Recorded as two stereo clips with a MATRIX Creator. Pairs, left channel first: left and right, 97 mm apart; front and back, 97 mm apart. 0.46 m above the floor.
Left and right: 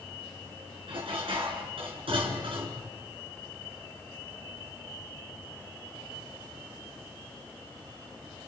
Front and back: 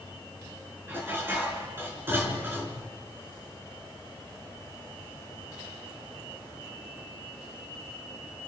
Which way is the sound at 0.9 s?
115° right.